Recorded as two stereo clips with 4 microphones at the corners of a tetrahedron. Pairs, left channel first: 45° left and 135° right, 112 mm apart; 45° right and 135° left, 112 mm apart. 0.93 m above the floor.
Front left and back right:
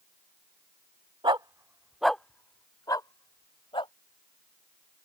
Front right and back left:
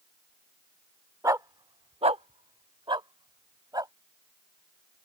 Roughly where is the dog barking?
Behind.